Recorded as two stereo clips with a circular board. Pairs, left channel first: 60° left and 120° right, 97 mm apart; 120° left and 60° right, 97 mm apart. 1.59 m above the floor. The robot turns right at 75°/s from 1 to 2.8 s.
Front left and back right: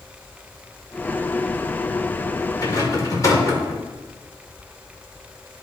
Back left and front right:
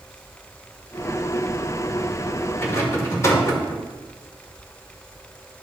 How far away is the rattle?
About 1.5 m.